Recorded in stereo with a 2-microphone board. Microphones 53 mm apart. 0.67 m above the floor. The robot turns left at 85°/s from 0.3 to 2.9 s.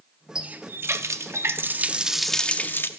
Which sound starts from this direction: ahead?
A running tap, at 0.3 s.